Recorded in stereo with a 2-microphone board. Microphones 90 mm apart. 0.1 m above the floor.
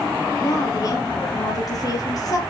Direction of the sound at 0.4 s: 40° left (ahead or behind).